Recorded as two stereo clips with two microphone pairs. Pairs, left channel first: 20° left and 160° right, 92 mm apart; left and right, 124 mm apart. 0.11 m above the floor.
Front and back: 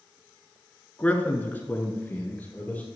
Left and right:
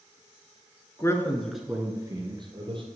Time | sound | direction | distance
1.0 | a man speaking | 75° left | 1.2 m